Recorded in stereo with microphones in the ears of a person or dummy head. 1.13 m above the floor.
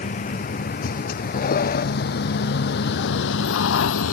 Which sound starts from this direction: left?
A vehicle, at 0.0 s.